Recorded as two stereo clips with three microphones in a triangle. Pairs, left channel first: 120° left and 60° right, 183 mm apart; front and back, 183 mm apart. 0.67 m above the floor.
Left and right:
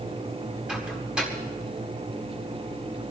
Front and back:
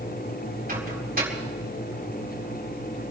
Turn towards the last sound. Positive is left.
turn(degrees=-145)